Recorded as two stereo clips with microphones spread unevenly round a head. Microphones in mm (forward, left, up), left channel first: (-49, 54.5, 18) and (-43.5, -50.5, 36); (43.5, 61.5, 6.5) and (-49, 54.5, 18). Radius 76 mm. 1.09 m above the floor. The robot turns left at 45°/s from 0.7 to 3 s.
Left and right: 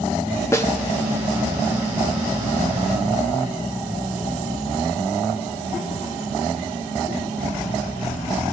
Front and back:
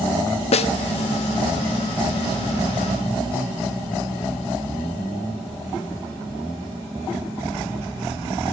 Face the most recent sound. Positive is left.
turn(degrees=-85)